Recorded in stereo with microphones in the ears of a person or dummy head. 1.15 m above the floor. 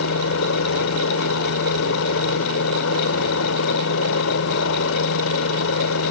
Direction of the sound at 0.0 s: 65° left (ahead or behind).